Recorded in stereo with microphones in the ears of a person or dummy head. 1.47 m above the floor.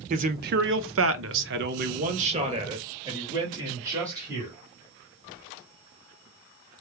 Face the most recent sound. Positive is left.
turn(degrees=-15)  # may be behind; listen again after turning